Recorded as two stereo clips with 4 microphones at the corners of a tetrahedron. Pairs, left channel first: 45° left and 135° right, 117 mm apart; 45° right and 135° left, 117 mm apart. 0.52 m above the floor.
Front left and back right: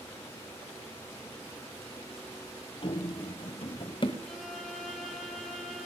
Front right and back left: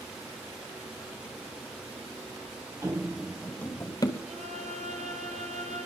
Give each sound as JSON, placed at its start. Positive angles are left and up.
{"t": 2.8, "sound": "running footsteps", "azimuth_deg": 75, "distance_m": 0.9}
{"t": 4.2, "sound": "a violin", "azimuth_deg": 135, "distance_m": 2.0}